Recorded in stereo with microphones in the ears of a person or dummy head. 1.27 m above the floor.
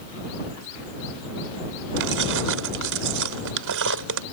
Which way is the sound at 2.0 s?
65° right (ahead or behind).